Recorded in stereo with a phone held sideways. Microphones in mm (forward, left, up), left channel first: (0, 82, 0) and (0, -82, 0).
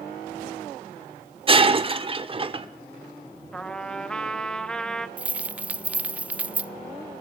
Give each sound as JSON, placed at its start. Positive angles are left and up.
{"t": 1.5, "sound": "breaking glass", "side_deg": -35, "distance_m": 1.2}
{"t": 3.5, "sound": "a trumpet", "side_deg": 5, "distance_m": 1.1}
{"t": 5.2, "sound": "keys jangling", "side_deg": -10, "distance_m": 0.6}